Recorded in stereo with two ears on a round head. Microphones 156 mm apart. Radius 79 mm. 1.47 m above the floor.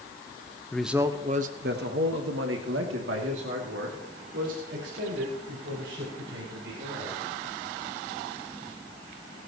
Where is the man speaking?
5° left (ahead or behind), 1.0 m; by 7.2 s 80° right, 7.5 m.